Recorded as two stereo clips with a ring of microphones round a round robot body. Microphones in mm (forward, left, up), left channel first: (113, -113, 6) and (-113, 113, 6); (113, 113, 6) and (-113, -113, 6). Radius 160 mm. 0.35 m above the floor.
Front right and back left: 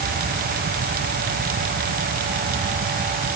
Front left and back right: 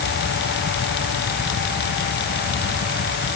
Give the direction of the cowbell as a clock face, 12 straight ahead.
No cowbell in this recording.